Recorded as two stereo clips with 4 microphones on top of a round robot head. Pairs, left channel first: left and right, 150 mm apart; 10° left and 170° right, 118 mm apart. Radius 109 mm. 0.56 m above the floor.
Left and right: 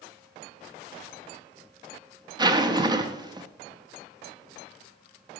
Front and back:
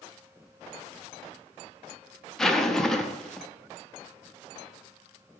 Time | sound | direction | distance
2.4 | a zipper | 70° right | 1.0 m